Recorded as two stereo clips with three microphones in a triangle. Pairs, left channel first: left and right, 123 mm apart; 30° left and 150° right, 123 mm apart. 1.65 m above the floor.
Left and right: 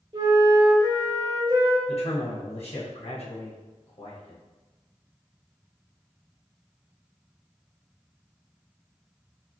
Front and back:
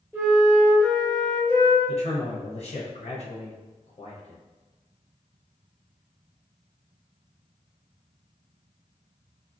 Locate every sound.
0.1 s a flute: 90° right, 1.6 m
1.9 s a man speaking: 55° left, 1.0 m